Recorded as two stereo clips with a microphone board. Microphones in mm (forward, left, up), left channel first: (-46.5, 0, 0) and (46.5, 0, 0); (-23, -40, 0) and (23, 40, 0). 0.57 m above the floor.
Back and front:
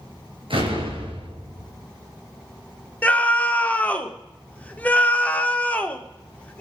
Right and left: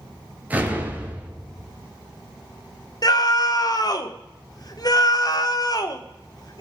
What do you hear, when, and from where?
0.5 s an explosion: 10° right, 3 m
3.0 s a scream: 110° right, 1.3 m